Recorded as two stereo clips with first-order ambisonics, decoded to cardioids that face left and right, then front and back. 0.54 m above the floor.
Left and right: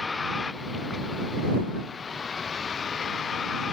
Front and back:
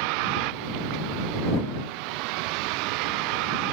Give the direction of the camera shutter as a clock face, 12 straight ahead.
No camera shutter in this recording.